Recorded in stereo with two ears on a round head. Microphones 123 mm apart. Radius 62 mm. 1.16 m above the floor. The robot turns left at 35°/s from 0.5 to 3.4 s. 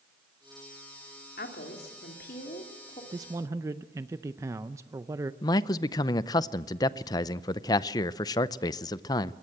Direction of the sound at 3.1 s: 30° right (ahead or behind).